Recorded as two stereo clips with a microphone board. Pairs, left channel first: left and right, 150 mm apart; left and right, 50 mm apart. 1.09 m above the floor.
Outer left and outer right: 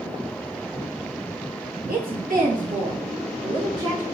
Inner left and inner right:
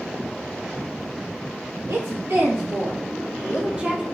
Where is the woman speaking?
75° right (ahead or behind), 1.5 m; by 4.0 s 20° right (ahead or behind), 1.1 m.